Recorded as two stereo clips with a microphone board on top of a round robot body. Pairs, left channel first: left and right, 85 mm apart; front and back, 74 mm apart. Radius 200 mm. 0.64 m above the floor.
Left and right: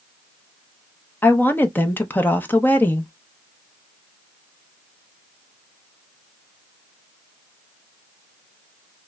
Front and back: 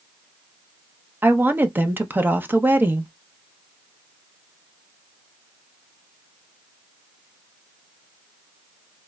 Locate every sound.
1.2 s a woman speaking: 140° left, 0.8 m